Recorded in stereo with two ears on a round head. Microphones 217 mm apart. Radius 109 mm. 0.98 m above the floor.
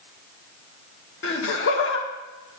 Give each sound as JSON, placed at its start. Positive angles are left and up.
{"t": 1.2, "sound": "laughter", "side_deg": 55, "distance_m": 1.4}